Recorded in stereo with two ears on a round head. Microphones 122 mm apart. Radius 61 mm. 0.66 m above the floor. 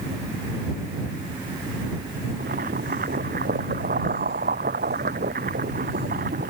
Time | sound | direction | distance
2.4 | boiling | 65° right (ahead or behind) | ?